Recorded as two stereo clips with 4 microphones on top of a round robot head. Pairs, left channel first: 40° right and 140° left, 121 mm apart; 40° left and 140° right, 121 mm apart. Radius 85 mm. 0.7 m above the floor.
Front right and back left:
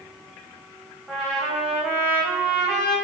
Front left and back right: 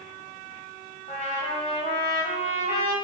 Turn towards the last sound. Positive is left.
turn(degrees=60)